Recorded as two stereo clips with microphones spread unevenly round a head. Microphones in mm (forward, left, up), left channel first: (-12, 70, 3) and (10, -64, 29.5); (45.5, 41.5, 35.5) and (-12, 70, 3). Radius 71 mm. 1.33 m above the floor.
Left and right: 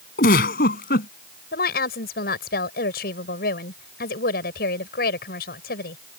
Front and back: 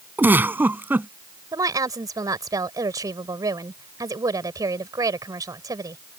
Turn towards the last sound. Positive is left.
turn(degrees=120)